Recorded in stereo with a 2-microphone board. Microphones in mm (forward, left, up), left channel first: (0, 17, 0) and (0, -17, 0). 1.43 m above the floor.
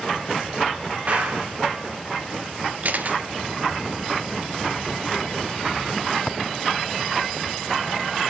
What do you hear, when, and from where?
1.1 s a clap: 40° right (ahead or behind), 4.5 m
2.8 s a camera shutter: 55° right (ahead or behind), 1.3 m